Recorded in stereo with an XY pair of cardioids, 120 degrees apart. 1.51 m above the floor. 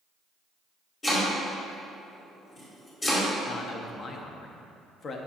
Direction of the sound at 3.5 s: 45° left.